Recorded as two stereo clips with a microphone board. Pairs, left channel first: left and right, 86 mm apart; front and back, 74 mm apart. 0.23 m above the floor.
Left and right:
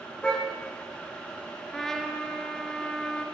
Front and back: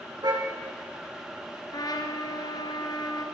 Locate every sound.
0.2 s a car horn: 170° left, 7 m
1.7 s a trumpet: 5° left, 3 m